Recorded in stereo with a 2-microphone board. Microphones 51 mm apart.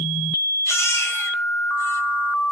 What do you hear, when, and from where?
0.7 s a baby crying: 70° left (ahead or behind), 2.5 m